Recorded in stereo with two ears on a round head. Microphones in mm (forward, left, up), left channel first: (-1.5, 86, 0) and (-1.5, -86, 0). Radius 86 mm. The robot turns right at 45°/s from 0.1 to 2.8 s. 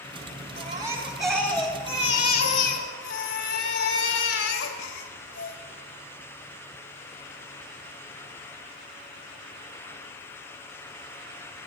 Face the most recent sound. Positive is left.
turn(degrees=70)